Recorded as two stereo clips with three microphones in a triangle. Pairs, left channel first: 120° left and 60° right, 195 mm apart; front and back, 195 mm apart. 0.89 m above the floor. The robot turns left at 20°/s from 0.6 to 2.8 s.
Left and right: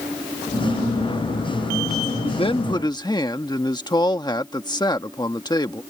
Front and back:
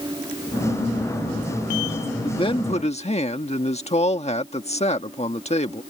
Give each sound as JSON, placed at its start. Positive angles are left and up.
{"t": 2.2, "sound": "a man speaking", "azimuth_deg": 65}